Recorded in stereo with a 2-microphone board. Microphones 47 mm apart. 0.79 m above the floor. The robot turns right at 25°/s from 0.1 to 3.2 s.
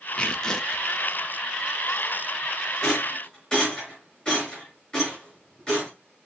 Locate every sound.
0.2 s tearing paper: 25° left (ahead or behind), 0.6 m; by 0.9 s 5° left (ahead or behind), 0.6 m
2.8 s a rattle: 10° left (ahead or behind), 4 m; by 5.9 s 20° left (ahead or behind), 4 m